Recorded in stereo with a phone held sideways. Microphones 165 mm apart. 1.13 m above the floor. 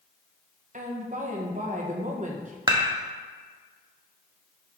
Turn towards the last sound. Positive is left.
turn(degrees=-25)  # may be behind; listen again after turning